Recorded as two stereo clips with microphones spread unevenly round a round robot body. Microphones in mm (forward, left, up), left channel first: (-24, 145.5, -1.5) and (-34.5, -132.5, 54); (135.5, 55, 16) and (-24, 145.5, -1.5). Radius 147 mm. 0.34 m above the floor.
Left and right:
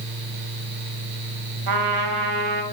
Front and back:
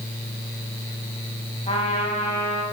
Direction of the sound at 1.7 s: 100° right.